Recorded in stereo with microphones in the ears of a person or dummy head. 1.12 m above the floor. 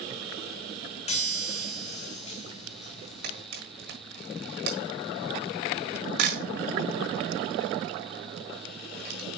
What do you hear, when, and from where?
1.1 s a chime: 35° left (ahead or behind), 1.0 m
3.2 s a camera shutter: 55° right (ahead or behind), 1.5 m